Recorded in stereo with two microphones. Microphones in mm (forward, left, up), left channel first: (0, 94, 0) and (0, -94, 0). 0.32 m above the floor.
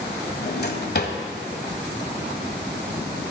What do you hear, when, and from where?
0.4 s a drawer: 60° left (ahead or behind), 1.2 m